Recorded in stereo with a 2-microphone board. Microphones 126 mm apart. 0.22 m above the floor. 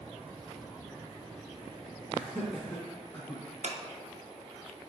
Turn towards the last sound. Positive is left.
turn(degrees=-65)  # may be behind; listen again after turning